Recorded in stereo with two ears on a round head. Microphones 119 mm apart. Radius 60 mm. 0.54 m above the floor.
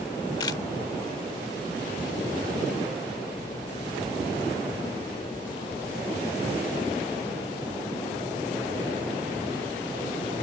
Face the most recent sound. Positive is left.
turn(degrees=30)  # may be behind; listen again after turning